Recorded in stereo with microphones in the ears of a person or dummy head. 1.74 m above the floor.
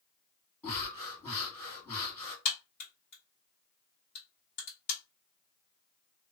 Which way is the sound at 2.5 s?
35° left (ahead or behind).